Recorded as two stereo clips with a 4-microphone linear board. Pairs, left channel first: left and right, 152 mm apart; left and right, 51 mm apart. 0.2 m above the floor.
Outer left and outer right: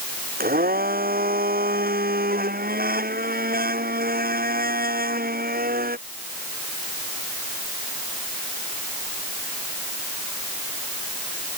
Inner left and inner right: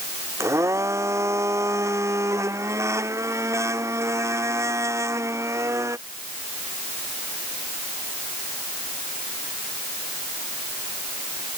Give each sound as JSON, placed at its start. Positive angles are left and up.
{"t": 0.4, "sound": "a blender", "side_deg": -75}